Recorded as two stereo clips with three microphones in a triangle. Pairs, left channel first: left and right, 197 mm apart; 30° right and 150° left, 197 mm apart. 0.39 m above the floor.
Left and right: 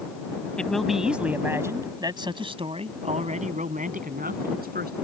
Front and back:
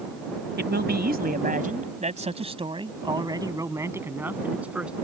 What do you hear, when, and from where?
0.6 s a man speaking: 175° left; by 5.0 s 125° right